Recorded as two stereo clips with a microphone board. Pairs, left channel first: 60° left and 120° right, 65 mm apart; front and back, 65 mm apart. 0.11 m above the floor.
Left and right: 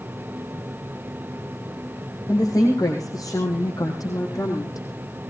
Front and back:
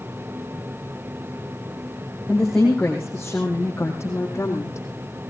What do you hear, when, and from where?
2.3 s a woman speaking: 80° left, 4.5 m; by 4.9 s 40° left, 5 m